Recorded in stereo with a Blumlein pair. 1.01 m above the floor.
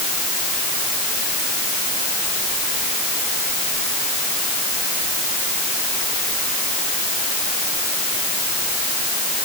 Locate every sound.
Only background noise.